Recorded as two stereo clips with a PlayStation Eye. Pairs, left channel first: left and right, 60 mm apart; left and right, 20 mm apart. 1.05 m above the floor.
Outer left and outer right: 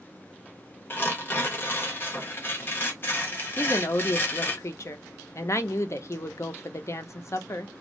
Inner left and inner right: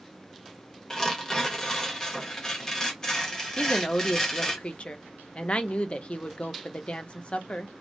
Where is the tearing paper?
35° left (ahead or behind), 0.7 m.